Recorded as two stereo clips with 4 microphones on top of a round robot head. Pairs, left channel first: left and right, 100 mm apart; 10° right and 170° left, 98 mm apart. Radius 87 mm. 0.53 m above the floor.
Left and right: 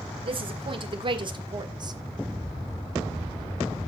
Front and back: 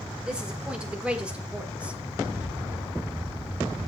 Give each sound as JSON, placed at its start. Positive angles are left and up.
{"t": 0.2, "sound": "a woman speaking", "azimuth_deg": -105, "distance_m": 2.0}